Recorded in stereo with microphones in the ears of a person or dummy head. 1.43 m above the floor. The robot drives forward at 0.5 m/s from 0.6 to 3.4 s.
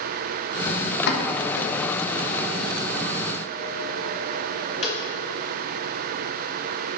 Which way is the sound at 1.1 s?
60° left (ahead or behind).